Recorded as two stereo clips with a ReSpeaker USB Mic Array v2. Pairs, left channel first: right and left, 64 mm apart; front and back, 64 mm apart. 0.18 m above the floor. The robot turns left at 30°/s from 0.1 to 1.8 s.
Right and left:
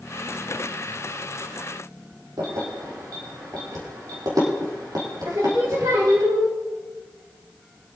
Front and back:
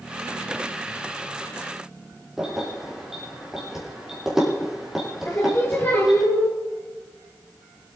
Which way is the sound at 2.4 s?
100° left.